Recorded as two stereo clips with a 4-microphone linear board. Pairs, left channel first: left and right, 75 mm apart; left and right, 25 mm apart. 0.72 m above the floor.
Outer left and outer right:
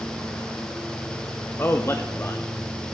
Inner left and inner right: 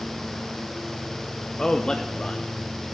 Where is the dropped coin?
No dropped coin in this recording.